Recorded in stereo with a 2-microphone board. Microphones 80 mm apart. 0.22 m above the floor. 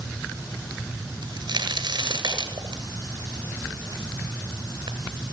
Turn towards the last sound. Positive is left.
turn(degrees=-70)  # may be behind; listen again after turning